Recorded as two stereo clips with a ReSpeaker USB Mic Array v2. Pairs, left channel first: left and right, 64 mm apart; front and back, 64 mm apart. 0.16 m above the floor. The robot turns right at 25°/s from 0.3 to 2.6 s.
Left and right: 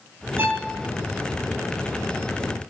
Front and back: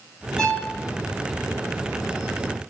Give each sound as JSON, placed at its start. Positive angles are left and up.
{"t": 0.4, "sound": "a violin", "azimuth_deg": -85, "distance_m": 0.6}